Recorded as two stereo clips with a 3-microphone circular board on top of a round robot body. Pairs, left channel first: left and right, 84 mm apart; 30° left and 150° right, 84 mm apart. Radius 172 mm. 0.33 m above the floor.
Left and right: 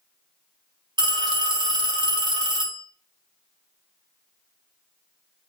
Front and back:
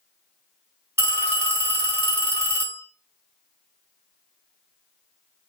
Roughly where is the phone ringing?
Right.